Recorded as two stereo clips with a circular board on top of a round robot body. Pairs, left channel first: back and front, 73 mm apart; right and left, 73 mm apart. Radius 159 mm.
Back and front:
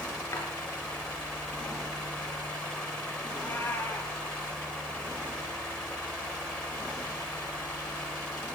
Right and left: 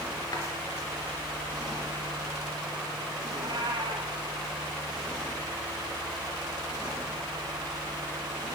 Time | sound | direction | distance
0.3 | a drawer | 125° right | 4 m
3.3 | a cat meowing | 115° left | 1.9 m